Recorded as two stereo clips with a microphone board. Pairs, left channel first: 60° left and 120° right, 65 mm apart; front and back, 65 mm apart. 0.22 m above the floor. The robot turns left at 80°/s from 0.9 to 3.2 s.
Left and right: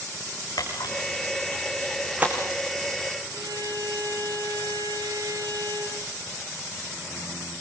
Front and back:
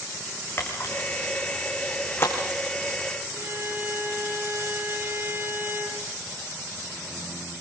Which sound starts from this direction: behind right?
A violin, at 3.3 s.